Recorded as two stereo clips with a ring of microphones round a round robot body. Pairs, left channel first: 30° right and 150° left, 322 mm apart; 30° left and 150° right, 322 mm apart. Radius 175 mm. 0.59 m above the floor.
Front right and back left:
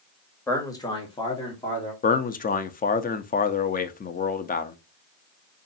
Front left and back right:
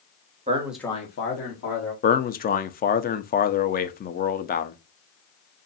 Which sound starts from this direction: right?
A man speaking, at 0.5 s.